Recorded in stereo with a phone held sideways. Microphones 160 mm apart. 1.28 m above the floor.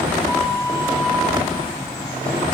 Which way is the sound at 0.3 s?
Centre (ahead or behind).